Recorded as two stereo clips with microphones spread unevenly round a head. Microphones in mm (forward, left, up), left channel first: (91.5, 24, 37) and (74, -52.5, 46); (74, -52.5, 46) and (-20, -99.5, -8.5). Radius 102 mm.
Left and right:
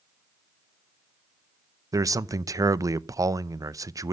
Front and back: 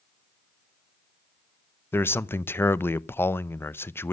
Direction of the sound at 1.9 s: 55° right.